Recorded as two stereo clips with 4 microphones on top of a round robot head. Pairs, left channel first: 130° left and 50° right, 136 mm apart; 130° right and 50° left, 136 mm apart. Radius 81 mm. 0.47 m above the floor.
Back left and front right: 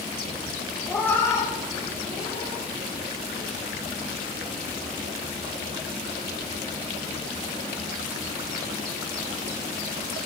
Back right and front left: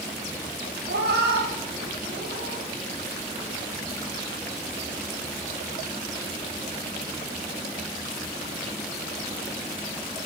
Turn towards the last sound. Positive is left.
turn(degrees=75)